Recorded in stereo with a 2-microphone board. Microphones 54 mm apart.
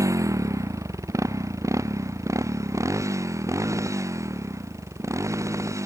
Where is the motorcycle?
80° right; by 5.9 s 70° right (ahead or behind).